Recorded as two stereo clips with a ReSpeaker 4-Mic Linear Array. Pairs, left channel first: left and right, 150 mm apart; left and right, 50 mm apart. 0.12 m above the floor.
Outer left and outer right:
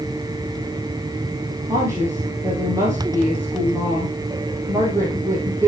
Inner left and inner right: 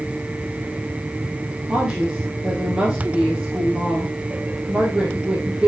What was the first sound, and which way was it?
A woman speaking, 20° right (ahead or behind).